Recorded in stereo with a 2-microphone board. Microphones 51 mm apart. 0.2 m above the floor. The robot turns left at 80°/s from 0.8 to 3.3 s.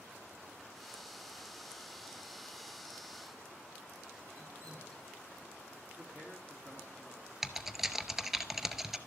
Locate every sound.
4.3 s dripping: 75° right (ahead or behind), 4 m
6.0 s a man speaking: 45° right (ahead or behind), 3 m
7.4 s typing on a keyboard: 5° right (ahead or behind), 0.6 m